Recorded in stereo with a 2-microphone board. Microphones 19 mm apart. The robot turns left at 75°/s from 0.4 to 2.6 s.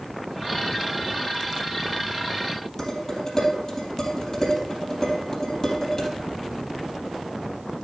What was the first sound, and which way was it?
Dishes clattering, 30° left (ahead or behind).